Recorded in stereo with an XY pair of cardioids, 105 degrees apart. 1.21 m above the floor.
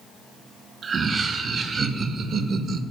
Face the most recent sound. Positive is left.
turn(degrees=-60)